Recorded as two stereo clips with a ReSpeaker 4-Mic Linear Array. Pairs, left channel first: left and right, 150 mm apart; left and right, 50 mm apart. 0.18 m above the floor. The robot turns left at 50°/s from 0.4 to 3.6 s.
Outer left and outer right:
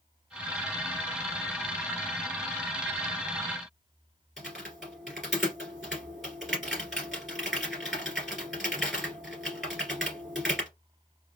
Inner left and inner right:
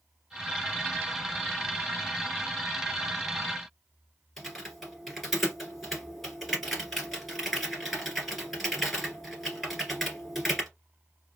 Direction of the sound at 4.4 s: Centre (ahead or behind).